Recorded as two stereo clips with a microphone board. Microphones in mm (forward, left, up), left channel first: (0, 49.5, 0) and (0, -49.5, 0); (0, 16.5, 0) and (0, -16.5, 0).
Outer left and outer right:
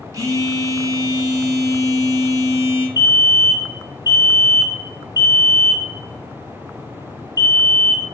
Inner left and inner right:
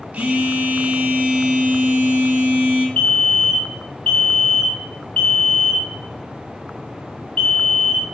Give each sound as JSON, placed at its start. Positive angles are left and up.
{"t": 0.1, "sound": "a phone buzzing", "side_deg": -35, "distance_m": 1.4}
{"t": 3.0, "sound": "a fire alarm", "side_deg": 35, "distance_m": 1.7}